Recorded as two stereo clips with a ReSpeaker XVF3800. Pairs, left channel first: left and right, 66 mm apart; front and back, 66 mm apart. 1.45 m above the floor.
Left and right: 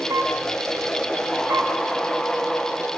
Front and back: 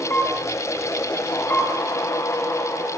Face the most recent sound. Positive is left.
turn(degrees=-65)